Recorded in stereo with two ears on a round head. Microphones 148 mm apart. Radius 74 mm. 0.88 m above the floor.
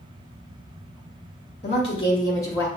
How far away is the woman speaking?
About 1.6 m.